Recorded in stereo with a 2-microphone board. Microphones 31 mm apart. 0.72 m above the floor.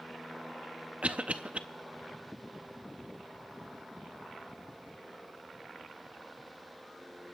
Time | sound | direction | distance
1.0 | a cough | 40° right (ahead or behind) | 0.5 m